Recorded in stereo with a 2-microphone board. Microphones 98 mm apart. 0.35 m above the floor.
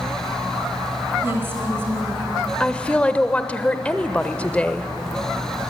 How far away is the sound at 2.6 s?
About 0.8 m.